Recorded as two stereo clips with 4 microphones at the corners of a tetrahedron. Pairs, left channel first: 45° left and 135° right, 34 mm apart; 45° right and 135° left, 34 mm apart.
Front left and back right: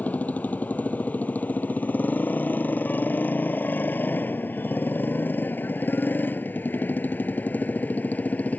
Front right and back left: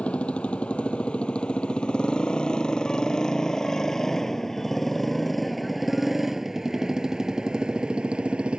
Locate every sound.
0.0 s a motorcycle: 10° left; by 8.6 s 80° left